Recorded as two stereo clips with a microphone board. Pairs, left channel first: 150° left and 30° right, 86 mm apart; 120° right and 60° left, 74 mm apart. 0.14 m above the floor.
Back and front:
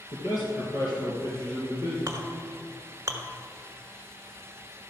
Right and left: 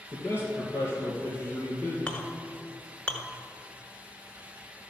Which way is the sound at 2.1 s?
55° right.